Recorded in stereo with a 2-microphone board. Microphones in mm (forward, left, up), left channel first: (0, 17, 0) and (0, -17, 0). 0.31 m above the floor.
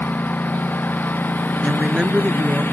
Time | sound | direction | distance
0.0 | a lawn mower | 75° left (ahead or behind) | ?
1.6 | a woman speaking | 25° right (ahead or behind) | ?